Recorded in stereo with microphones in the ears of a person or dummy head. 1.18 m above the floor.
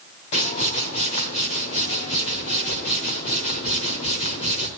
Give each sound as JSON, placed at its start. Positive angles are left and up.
{"t": 0.3, "sound": "a whoosh", "side_deg": 35, "distance_m": 1.2}